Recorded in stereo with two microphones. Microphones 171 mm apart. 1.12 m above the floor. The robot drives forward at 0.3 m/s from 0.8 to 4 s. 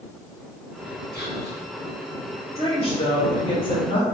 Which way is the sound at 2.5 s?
35° left (ahead or behind).